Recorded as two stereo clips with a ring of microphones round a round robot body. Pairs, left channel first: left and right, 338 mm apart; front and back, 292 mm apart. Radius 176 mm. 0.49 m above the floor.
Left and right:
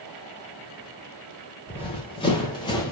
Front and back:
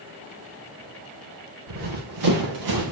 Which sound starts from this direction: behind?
Running footsteps, at 1.7 s.